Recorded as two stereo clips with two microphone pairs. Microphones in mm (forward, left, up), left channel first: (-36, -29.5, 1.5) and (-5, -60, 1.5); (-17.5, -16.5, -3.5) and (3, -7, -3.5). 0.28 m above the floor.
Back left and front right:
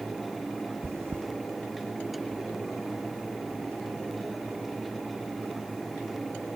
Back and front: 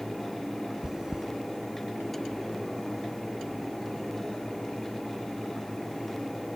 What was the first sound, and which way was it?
Chewing, 40° right.